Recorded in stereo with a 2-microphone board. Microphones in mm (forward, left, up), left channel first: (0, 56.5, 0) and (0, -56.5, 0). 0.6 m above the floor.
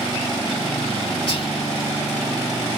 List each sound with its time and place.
1.3 s whispering: 45° left (ahead or behind), 0.8 m